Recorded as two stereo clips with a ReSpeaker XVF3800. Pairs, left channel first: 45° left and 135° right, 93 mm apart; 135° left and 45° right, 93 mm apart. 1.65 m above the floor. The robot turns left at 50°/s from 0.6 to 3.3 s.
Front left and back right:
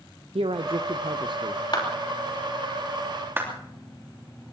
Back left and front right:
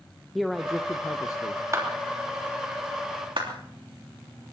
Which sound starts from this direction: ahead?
A clap, at 1.7 s.